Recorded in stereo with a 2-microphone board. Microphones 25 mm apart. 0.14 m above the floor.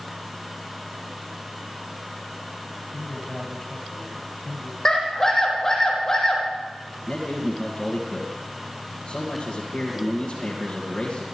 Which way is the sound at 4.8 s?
15° left (ahead or behind).